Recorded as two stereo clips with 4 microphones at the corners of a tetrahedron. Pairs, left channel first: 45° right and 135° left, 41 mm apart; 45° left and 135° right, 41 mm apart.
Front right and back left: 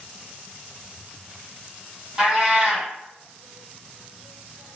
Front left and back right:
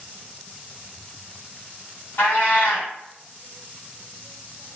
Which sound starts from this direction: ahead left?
A cat meowing, at 2.2 s.